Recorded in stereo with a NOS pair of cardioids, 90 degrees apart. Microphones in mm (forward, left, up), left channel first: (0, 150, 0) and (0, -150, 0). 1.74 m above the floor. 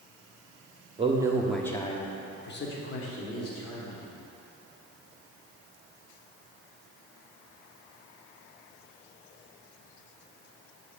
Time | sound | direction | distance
1.0 | a man speaking | 20° right | 0.9 m